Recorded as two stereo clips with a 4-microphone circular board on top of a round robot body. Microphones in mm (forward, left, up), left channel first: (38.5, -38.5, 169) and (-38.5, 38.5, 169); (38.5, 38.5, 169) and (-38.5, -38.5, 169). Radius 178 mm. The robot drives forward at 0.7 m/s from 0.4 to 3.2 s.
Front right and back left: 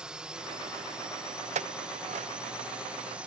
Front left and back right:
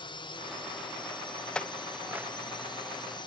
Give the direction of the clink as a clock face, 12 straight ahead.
8 o'clock.